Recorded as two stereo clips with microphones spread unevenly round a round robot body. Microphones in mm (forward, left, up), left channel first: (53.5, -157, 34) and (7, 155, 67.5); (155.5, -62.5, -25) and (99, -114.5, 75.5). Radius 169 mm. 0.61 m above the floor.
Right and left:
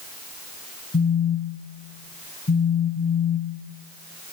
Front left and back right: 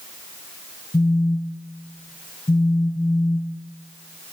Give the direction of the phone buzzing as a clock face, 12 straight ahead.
1 o'clock.